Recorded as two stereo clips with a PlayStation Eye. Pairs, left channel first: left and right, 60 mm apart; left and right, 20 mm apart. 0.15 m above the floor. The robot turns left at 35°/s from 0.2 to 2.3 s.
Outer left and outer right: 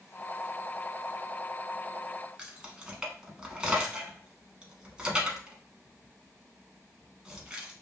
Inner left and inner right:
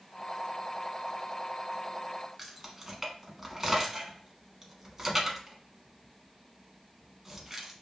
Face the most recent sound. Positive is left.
turn(degrees=-15)  # may be behind; listen again after turning